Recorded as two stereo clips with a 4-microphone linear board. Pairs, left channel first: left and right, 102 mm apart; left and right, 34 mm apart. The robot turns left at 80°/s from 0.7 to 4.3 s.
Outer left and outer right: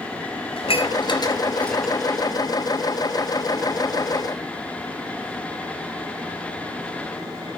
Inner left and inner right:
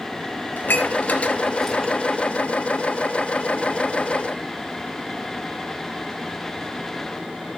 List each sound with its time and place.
0.6 s dishes clattering: 70° left (ahead or behind), 2 m; by 1.9 s 10° right (ahead or behind), 2 m